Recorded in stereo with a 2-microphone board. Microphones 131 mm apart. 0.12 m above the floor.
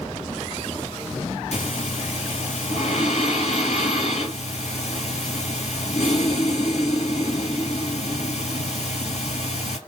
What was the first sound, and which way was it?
Breathing, 55° left (ahead or behind).